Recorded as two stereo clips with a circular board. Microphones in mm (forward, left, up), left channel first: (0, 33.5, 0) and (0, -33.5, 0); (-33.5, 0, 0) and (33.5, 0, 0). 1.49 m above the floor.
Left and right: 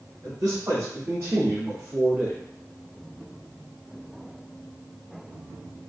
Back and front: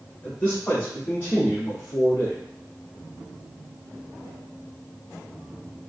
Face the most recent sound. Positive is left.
turn(degrees=-175)